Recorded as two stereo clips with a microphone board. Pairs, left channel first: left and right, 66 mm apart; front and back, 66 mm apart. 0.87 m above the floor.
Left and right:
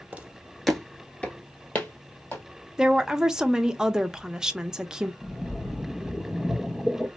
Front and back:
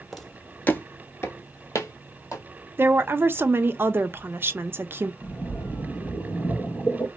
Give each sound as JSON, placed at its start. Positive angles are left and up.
{"t": 0.1, "sound": "footsteps", "azimuth_deg": -90, "distance_m": 0.8}
{"t": 2.8, "sound": "a woman speaking", "azimuth_deg": -160, "distance_m": 0.5}
{"t": 5.2, "sound": "a splash", "azimuth_deg": 25, "distance_m": 0.9}